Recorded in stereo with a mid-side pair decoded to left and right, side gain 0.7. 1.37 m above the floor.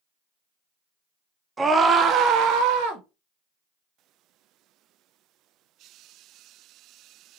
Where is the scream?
20° right, 0.8 m; by 3.0 s 80° right, 1.1 m.